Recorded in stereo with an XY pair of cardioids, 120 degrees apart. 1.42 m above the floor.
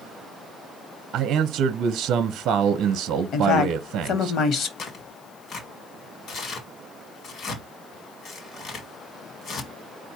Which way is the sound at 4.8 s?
55° left.